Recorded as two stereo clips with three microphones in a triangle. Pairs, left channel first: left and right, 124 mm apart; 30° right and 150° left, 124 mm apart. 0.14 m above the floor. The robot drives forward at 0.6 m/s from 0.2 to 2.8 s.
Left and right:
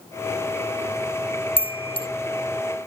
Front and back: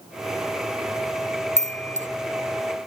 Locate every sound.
1.6 s a chime: 130° left; by 2.1 s 135° left